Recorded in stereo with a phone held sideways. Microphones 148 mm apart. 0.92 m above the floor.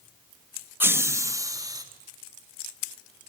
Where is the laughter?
15° right (ahead or behind), 1.1 m; by 1.8 s 25° right (ahead or behind), 1.8 m.